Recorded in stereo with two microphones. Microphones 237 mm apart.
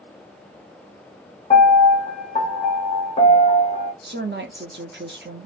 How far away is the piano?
About 0.9 m.